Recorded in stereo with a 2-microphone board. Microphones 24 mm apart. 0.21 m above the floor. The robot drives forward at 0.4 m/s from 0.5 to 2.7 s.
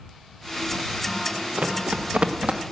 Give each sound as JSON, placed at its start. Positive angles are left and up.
{"t": 1.6, "sound": "running footsteps", "side_deg": -65, "distance_m": 2.0}